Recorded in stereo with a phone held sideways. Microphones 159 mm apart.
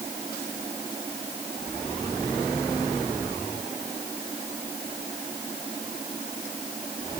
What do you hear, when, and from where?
Only background noise.